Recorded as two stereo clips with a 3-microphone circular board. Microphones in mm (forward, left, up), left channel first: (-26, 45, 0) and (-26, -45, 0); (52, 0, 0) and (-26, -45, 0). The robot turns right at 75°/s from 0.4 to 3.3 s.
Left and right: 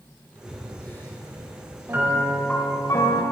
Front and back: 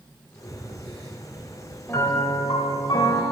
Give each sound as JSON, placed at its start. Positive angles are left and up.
{"t": 0.4, "sound": "breathing", "azimuth_deg": -10, "distance_m": 2.5}
{"t": 1.9, "sound": "a piano", "azimuth_deg": -30, "distance_m": 1.1}